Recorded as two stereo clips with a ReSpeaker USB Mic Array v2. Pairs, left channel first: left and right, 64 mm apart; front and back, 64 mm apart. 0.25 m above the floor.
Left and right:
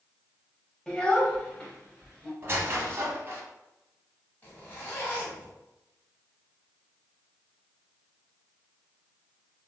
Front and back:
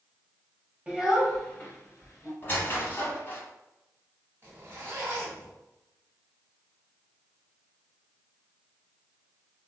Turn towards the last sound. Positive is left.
turn(degrees=140)